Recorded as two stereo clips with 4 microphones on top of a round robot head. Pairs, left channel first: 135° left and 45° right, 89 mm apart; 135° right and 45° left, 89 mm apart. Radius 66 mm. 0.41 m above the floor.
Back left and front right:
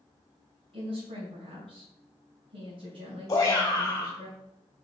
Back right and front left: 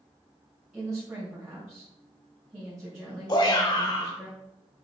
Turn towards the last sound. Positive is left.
turn(degrees=-170)